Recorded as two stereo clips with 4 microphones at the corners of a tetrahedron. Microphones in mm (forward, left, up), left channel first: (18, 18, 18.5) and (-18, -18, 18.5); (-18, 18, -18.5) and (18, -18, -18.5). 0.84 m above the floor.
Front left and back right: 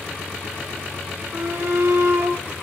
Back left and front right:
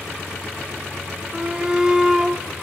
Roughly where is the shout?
Right.